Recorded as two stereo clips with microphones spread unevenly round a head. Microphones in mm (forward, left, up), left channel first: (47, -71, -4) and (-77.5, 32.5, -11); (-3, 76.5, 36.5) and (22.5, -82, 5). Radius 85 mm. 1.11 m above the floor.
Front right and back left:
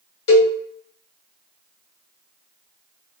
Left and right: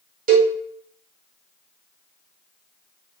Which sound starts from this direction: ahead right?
A cowbell, at 0.3 s.